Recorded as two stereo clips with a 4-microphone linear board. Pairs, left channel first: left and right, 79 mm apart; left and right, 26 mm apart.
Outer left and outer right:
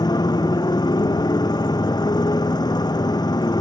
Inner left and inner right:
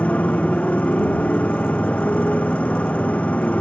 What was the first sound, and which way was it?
A motorcycle, 60° left (ahead or behind).